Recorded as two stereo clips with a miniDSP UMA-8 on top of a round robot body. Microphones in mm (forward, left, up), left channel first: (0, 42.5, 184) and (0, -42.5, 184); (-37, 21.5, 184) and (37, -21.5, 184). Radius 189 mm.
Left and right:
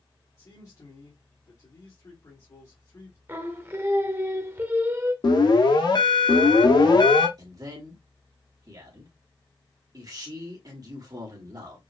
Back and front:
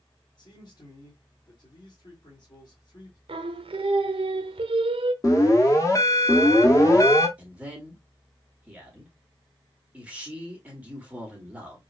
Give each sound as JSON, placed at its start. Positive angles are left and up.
{"t": 0.4, "sound": "a man speaking", "azimuth_deg": 130, "distance_m": 2.0}
{"t": 3.3, "sound": "singing", "azimuth_deg": -25, "distance_m": 0.6}
{"t": 5.2, "sound": "an alarm", "azimuth_deg": 105, "distance_m": 1.3}
{"t": 7.4, "sound": "a man speaking", "azimuth_deg": -100, "distance_m": 1.8}